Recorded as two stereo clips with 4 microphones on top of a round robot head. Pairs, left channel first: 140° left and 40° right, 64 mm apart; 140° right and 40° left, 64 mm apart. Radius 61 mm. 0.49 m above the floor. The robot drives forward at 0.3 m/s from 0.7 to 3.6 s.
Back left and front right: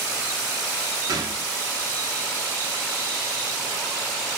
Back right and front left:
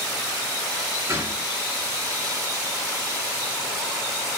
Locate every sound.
1.1 s a gunshot: 10° right, 0.9 m; by 1.5 s 15° right, 0.8 m